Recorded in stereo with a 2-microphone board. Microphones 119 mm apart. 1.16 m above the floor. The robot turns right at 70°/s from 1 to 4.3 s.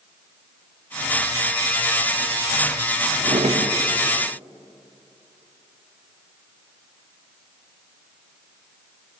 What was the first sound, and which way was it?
A drawer, 125° right.